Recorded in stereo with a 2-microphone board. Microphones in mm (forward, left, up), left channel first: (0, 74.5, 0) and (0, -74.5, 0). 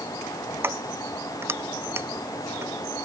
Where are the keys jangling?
15° right (ahead or behind).